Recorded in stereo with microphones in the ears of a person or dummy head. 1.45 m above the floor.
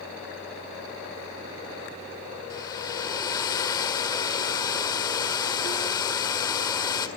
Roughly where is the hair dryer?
Left.